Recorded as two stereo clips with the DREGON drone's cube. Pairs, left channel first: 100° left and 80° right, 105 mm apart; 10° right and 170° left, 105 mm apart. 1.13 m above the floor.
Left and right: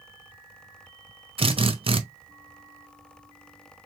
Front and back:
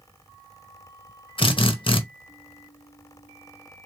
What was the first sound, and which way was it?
A drill, 50° right.